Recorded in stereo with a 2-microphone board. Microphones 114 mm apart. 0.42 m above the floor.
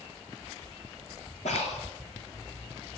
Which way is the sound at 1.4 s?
85° left.